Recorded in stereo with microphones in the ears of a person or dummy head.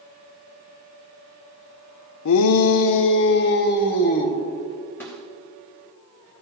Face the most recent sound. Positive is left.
turn(degrees=15)  # may be behind; listen again after turning